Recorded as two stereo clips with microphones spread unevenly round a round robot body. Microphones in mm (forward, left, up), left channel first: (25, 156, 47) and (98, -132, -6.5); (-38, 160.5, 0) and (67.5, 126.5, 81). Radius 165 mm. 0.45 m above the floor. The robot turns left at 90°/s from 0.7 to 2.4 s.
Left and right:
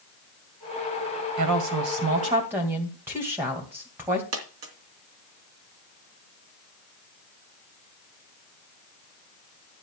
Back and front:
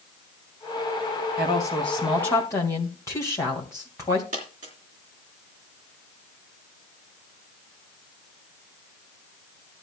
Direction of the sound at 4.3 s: 80° right.